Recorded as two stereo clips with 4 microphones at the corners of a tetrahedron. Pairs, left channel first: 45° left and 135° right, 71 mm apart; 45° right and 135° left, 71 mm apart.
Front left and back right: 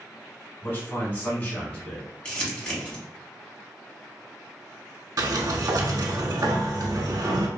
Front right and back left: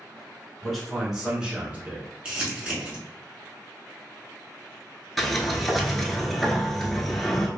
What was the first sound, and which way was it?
A man speaking, 35° left.